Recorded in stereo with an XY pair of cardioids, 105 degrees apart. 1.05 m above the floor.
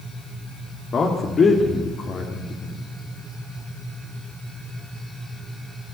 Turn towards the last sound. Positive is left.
turn(degrees=45)